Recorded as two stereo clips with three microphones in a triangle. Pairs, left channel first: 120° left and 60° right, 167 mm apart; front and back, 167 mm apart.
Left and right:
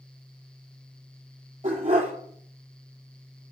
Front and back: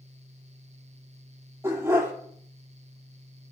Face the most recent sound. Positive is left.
turn(degrees=-105)